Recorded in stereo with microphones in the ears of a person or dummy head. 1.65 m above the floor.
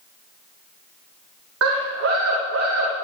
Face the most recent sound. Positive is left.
turn(degrees=-70)  # may be behind; listen again after turning